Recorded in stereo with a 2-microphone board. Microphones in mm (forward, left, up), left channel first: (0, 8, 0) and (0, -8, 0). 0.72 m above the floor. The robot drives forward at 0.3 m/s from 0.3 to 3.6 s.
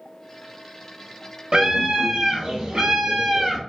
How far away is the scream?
About 1.4 m.